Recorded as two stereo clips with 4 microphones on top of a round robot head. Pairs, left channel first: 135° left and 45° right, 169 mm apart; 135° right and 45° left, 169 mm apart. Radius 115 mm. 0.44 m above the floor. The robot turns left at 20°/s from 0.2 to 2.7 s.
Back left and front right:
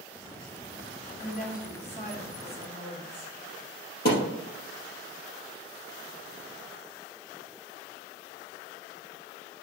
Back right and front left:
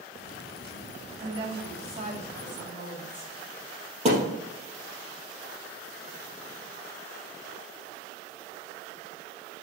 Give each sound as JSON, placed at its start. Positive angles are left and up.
{"t": 1.2, "sound": "a woman speaking", "azimuth_deg": 110, "distance_m": 3.5}
{"t": 4.0, "sound": "a thud", "azimuth_deg": 100, "distance_m": 3.5}